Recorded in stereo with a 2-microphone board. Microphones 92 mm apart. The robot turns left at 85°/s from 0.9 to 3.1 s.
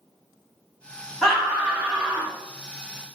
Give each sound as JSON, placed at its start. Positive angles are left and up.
{"t": 1.2, "sound": "a scream", "azimuth_deg": 0, "distance_m": 1.4}